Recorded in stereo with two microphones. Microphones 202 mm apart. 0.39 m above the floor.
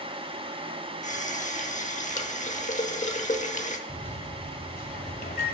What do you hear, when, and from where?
1.0 s a running tap: 35° left (ahead or behind), 0.9 m
3.9 s a microwave: 50° left (ahead or behind), 1.3 m